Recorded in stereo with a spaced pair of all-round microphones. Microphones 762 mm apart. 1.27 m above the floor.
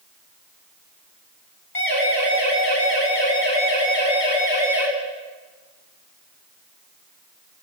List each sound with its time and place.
1.8 s a siren: 65° left (ahead or behind), 8.5 m; by 4.9 s 85° left, 8 m